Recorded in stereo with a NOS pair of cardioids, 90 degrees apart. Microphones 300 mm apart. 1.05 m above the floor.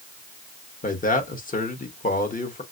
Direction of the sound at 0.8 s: 25° left.